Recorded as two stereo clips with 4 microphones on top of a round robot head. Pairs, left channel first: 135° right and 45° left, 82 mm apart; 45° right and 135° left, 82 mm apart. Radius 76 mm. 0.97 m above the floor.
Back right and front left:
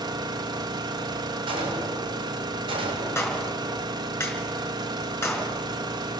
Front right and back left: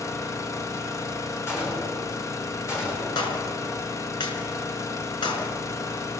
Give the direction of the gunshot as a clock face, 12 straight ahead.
11 o'clock.